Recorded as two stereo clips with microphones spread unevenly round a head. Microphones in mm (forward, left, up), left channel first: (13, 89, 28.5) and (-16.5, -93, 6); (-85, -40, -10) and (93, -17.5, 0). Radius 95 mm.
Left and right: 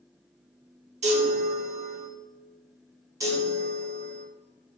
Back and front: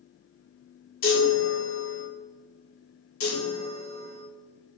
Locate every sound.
1.0 s a chime: 155° right, 3.5 m
3.2 s a chime: 175° right, 1.9 m